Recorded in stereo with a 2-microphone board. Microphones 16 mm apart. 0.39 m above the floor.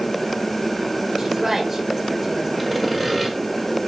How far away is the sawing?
About 1.3 m.